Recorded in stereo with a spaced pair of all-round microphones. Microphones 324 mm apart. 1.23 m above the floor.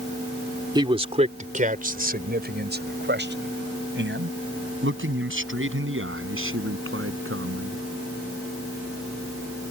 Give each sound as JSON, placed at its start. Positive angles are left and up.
{"t": 0.8, "sound": "a man speaking", "side_deg": -15}